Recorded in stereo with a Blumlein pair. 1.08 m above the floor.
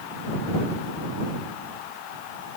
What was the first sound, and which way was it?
Only background noise.